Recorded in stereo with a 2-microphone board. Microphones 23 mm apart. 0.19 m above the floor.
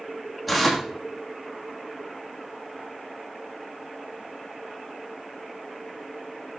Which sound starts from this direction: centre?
Tearing paper, at 0.5 s.